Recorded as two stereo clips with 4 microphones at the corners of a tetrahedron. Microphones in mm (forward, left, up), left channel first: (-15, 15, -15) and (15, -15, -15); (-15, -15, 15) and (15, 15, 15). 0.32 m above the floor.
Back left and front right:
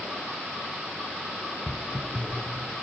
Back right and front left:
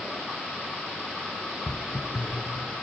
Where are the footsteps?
175° left, 1.3 m; by 2.7 s 150° right, 1.6 m.